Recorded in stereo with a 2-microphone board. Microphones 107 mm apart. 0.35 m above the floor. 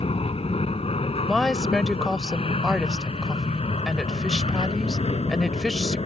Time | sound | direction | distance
0.0 | an aircraft | 65° left (ahead or behind) | ?
1.3 | a woman speaking | 5° left (ahead or behind) | ?